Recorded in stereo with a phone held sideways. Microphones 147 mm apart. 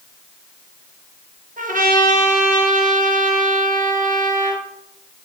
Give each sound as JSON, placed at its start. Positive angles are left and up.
{"t": 1.6, "sound": "a trumpet", "side_deg": -70, "distance_m": 1.0}